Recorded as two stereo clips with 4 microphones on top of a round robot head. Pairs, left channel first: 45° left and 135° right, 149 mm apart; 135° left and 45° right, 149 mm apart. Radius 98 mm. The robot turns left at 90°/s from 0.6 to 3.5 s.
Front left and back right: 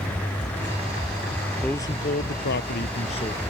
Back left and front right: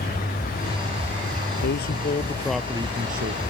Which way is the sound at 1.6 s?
130° left.